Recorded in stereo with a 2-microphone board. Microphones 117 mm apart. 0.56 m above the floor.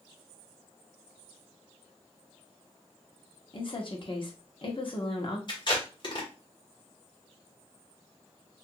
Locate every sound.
3.5 s a woman speaking: 45° left (ahead or behind), 0.9 m
5.5 s tape being pulled: 40° left (ahead or behind), 1.4 m